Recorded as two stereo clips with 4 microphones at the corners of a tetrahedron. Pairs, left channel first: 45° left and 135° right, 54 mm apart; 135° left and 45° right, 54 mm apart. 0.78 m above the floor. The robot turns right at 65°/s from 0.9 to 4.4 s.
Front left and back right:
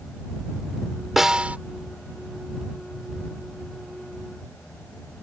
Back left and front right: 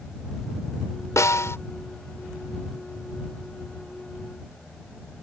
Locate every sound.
1.2 s a snare drum: 140° left; by 1.6 s 165° left